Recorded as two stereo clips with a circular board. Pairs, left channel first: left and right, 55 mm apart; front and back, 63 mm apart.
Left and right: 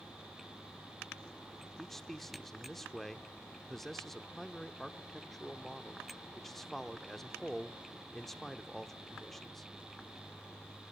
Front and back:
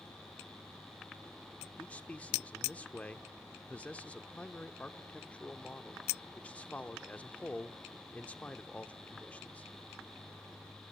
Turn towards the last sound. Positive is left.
turn(degrees=10)